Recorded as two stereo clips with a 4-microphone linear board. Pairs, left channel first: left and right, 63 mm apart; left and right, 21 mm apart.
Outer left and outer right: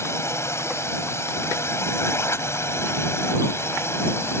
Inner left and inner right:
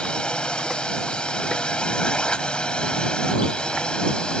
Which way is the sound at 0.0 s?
45° left (ahead or behind).